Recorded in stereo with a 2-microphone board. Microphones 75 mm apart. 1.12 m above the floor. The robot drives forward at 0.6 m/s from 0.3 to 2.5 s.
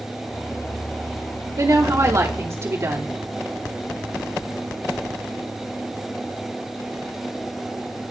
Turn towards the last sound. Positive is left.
turn(degrees=-40)  # may be behind; listen again after turning